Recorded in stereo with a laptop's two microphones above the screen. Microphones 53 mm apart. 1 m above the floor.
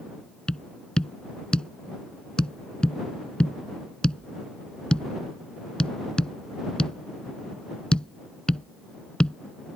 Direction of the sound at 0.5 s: 15° left (ahead or behind).